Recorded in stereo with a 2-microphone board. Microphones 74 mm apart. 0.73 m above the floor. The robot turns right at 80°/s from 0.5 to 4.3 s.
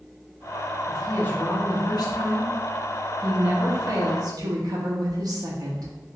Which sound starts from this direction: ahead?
A woman speaking, at 0.9 s.